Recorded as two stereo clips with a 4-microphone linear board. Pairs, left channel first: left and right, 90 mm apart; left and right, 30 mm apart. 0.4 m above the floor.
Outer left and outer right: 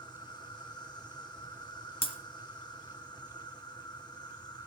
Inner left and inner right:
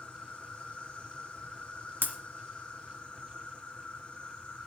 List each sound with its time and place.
0.0 s an insect: 55° left (ahead or behind), 3 m
2.0 s breaking glass: 85° left, 1.9 m